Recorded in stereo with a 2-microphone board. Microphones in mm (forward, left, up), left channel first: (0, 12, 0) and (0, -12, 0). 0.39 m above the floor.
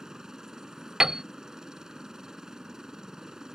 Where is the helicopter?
25° right (ahead or behind).